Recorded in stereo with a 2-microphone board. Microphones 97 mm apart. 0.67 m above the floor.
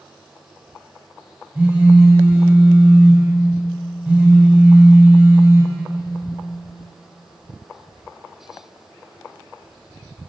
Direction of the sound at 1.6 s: 15° right (ahead or behind).